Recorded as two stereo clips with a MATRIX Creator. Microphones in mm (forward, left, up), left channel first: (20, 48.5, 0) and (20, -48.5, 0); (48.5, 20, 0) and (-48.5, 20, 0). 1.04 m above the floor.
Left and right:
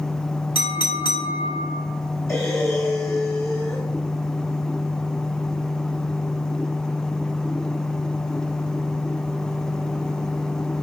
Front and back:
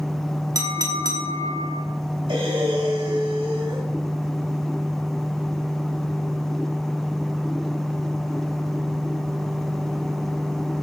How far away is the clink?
About 1.8 m.